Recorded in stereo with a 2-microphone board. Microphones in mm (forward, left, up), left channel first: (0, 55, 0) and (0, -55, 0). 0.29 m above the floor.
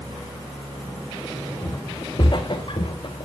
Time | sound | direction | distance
1.6 | footsteps | 35° left (ahead or behind) | 1.4 m